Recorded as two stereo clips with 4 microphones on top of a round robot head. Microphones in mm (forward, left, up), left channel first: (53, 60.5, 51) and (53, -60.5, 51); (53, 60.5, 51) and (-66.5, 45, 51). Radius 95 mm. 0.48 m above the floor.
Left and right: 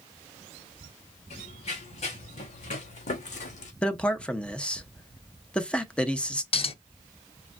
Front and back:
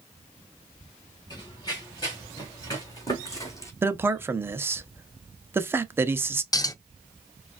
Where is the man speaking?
160° left, 0.7 m.